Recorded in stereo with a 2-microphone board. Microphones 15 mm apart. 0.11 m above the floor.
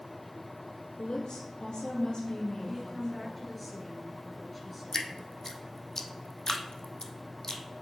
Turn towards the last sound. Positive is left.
turn(degrees=30)  # may be behind; listen again after turning